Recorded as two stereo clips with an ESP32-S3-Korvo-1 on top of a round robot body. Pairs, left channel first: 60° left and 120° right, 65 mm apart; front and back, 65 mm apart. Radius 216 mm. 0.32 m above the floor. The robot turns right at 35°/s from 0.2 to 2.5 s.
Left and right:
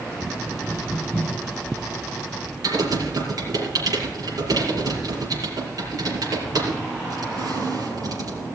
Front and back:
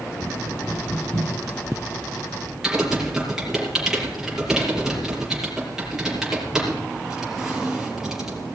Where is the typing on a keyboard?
100° right, 5 m.